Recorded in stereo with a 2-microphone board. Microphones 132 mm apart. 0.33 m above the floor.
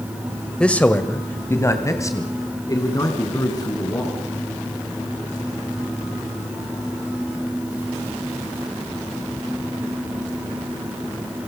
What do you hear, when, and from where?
0.6 s a man speaking: 10° left (ahead or behind), 1.2 m; by 4.2 s 30° left (ahead or behind), 4.5 m